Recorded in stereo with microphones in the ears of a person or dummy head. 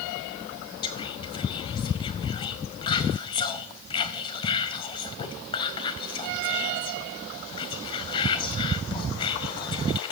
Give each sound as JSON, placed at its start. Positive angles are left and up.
{"t": 0.8, "sound": "whispering", "side_deg": 30, "distance_m": 0.8}